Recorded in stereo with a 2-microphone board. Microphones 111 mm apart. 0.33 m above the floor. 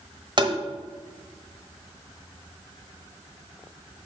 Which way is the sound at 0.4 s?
45° right (ahead or behind).